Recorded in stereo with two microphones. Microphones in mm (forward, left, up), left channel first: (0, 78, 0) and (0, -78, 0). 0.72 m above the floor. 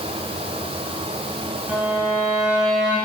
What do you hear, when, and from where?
1.7 s a violin: 5° right (ahead or behind), 2 m